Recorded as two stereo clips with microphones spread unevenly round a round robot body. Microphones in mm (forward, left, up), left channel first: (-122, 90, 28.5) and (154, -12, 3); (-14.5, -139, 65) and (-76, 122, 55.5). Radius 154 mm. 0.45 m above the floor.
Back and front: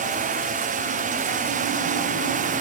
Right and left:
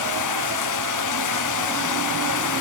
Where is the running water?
90° right.